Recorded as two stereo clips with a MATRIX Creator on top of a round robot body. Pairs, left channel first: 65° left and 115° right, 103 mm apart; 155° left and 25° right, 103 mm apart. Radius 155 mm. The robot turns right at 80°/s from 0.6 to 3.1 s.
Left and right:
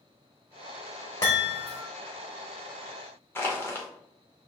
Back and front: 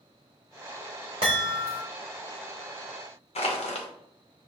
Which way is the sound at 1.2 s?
10° left.